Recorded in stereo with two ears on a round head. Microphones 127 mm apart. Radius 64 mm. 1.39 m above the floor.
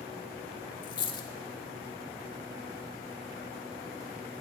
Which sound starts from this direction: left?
A dropped coin, at 0.8 s.